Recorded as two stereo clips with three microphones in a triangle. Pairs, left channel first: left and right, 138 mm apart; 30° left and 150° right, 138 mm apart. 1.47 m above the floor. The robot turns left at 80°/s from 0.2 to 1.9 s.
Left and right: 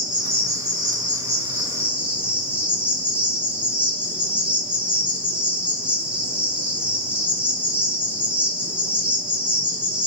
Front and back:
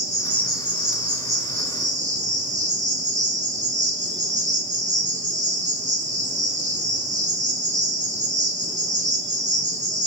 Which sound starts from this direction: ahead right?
An insect, at 0.0 s.